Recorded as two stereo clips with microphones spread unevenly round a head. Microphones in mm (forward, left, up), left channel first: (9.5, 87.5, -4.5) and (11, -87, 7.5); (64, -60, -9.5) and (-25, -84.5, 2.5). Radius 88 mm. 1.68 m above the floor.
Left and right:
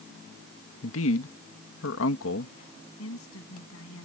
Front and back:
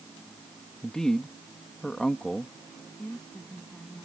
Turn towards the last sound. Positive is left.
turn(degrees=105)